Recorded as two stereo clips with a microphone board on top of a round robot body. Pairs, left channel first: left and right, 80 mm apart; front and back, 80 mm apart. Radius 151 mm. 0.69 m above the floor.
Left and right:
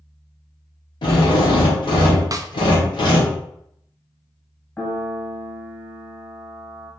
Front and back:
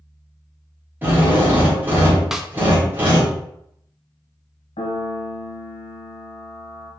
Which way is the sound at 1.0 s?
110° left.